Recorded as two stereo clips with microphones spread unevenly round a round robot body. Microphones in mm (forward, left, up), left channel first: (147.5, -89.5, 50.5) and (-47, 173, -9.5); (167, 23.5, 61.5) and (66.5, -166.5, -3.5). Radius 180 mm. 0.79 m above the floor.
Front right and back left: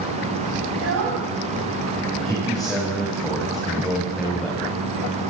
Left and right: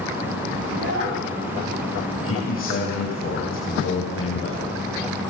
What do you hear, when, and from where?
0.7 s a child speaking: 175° right, 5 m
2.2 s a man speaking: 35° left, 4.5 m